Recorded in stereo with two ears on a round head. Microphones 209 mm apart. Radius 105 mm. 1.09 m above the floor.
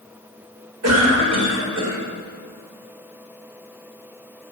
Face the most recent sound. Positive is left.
turn(degrees=-80)